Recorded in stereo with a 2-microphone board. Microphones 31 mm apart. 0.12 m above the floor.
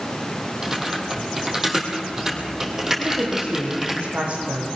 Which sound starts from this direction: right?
A woman speaking, at 3.0 s.